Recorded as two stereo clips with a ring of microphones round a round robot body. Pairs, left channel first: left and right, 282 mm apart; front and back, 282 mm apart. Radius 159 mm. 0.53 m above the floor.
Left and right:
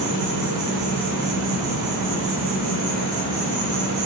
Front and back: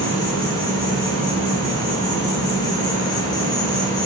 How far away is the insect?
About 1.9 m.